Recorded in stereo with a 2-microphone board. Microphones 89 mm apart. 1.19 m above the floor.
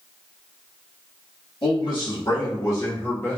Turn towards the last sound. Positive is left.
turn(degrees=20)  # may be behind; listen again after turning